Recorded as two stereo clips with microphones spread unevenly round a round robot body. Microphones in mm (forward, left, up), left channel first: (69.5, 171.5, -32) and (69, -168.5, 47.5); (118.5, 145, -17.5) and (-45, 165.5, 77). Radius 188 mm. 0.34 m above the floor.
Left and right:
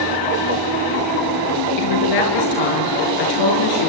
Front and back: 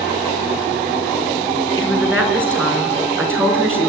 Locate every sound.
1.8 s a woman speaking: 85° left, 6 m